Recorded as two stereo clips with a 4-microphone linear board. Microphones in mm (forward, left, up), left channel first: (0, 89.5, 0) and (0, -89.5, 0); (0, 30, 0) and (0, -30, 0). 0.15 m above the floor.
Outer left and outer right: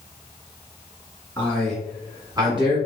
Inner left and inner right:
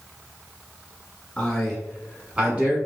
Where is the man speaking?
10° left (ahead or behind), 1.5 m; by 2.8 s 35° right (ahead or behind), 1.2 m.